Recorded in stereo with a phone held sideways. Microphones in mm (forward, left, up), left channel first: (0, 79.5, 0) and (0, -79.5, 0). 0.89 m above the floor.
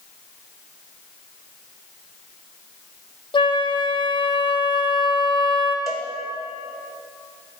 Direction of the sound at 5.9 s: Centre (ahead or behind).